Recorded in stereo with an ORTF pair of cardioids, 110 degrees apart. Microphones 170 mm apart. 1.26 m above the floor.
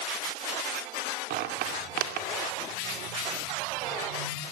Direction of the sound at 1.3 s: 70° right.